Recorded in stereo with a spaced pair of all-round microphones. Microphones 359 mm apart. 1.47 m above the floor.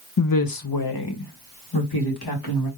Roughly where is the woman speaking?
Left.